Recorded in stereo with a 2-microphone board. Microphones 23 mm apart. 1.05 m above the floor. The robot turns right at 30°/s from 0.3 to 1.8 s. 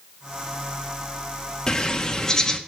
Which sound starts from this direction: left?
A bird, at 1.7 s.